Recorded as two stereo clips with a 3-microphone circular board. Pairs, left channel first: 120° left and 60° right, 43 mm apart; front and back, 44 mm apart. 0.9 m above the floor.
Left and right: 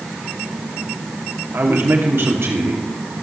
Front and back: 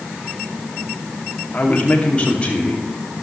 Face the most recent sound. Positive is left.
turn(degrees=-65)